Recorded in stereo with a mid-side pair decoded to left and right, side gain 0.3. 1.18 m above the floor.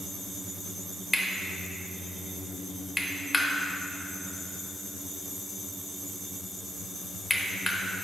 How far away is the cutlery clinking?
About 0.8 m.